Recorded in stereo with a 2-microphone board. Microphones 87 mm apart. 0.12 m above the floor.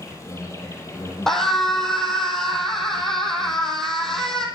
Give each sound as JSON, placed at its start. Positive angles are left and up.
{"t": 0.0, "sound": "an insect", "side_deg": 35, "distance_m": 6.0}
{"t": 1.3, "sound": "a scream", "side_deg": 5, "distance_m": 4.0}